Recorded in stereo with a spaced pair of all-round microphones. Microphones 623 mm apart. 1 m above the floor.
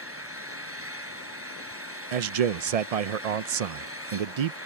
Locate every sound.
0.0 s an engine running: 20° right (ahead or behind)
2.1 s a man speaking: 70° right (ahead or behind)